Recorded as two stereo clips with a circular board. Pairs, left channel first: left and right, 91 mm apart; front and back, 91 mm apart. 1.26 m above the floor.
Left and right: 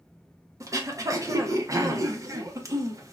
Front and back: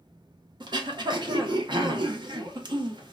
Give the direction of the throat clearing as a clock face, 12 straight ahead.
5 o'clock.